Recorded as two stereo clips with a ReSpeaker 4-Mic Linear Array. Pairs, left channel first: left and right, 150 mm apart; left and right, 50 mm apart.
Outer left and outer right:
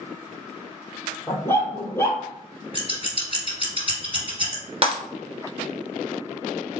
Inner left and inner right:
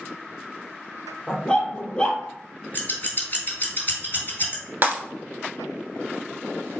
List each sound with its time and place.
1.3 s a dog barking: 15° left (ahead or behind), 0.9 m
2.7 s scissors: 35° left (ahead or behind), 1.9 m
4.8 s breaking glass: 40° right (ahead or behind), 1.0 m